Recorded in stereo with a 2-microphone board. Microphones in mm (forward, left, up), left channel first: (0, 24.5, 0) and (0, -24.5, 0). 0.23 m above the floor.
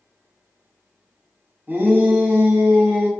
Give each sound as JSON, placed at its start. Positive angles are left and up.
{"t": 1.7, "sound": "a shout", "side_deg": -35, "distance_m": 1.3}